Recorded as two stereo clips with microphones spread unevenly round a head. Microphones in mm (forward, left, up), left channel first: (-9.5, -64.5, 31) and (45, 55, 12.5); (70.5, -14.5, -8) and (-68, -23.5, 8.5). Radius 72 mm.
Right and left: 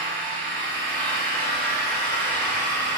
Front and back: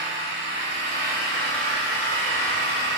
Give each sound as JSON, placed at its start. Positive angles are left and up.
{"t": 0.0, "sound": "an engine running", "azimuth_deg": 165, "distance_m": 4.5}